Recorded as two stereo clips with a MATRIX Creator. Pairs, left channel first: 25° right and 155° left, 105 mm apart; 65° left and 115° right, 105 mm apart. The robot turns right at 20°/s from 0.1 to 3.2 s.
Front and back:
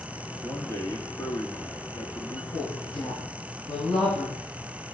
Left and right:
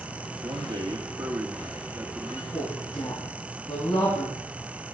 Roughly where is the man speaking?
Right.